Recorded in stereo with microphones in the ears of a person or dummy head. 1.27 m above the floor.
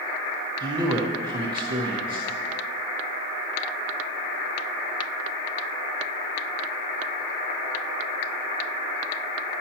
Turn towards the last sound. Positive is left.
turn(degrees=-30)  # may be behind; listen again after turning